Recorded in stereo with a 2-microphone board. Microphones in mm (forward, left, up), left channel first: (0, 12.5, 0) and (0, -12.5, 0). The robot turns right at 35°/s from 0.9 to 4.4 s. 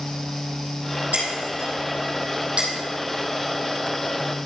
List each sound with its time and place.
1.1 s breaking glass: 80° right, 3 m; by 2.7 s 35° right (ahead or behind), 3 m